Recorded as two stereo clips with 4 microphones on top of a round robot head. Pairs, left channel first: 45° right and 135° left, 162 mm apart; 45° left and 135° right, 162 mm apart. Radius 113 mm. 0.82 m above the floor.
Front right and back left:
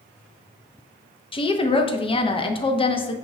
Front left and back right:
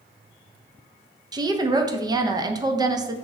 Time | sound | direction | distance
1.3 | a woman speaking | 80° right | 0.6 m